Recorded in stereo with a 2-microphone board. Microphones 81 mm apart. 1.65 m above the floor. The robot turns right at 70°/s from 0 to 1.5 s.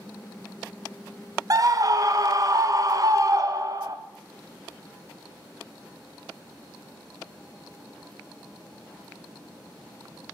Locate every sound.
1.5 s a scream: 45° right (ahead or behind), 0.5 m